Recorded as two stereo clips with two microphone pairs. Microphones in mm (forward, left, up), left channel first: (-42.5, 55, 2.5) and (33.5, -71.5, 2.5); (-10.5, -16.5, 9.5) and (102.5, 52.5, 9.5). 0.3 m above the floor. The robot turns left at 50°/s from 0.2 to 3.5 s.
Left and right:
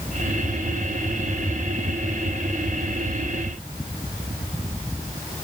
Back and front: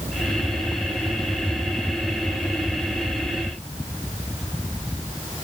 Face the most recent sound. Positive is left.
No sound to turn to.